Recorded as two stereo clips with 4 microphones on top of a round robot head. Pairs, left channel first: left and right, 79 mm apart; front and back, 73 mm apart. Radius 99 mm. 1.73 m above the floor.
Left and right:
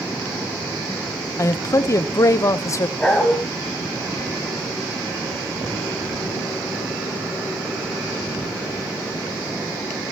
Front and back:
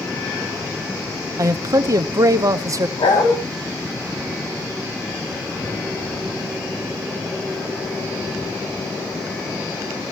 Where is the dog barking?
10° left, 3.5 m.